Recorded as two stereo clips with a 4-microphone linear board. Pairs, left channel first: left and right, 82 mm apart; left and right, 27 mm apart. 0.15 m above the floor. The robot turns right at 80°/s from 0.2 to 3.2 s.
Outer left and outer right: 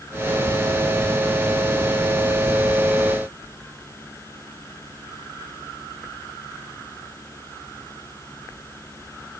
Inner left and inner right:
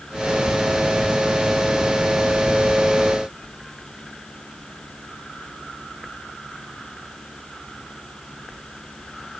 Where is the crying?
No crying in this recording.